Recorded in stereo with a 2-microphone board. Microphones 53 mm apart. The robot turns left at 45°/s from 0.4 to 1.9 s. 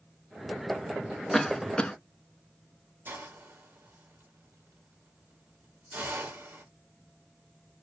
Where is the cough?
5° left (ahead or behind), 0.6 m; by 1.9 s 20° left (ahead or behind), 0.6 m.